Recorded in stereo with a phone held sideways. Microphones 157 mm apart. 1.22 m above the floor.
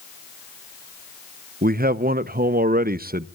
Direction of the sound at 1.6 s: 65° right (ahead or behind).